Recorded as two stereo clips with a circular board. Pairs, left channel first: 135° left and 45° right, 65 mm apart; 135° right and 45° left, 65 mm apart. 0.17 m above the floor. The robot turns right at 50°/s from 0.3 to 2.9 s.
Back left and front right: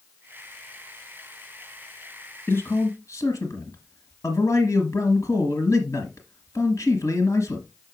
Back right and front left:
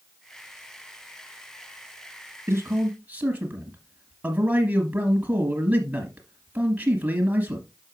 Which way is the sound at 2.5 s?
95° left.